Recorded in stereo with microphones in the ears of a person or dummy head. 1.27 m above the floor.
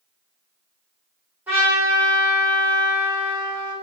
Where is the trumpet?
5° right (ahead or behind), 1.8 m.